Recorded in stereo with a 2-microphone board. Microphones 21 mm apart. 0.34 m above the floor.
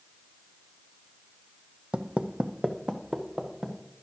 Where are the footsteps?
60° right (ahead or behind), 0.6 m; by 3.8 s 40° right (ahead or behind), 1.8 m.